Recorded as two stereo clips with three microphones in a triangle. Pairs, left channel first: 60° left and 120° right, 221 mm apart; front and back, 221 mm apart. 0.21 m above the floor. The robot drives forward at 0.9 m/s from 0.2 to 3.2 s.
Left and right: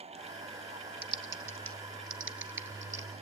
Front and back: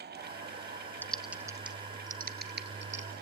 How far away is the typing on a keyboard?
About 1.0 m.